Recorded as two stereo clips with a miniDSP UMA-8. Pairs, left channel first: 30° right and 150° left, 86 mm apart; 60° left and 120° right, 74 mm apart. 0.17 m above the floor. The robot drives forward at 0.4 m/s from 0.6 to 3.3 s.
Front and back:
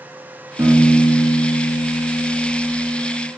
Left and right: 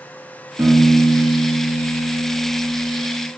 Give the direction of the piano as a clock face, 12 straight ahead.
5 o'clock.